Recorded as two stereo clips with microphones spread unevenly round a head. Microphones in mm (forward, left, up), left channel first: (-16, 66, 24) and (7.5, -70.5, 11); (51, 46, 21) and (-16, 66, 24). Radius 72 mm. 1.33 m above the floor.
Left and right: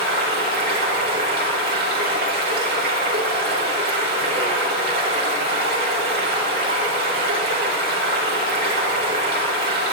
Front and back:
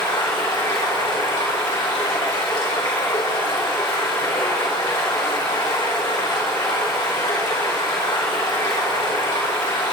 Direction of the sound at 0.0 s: 60° right.